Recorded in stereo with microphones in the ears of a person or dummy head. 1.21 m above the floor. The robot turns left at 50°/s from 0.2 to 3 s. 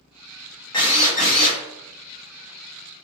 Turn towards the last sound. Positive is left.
turn(degrees=35)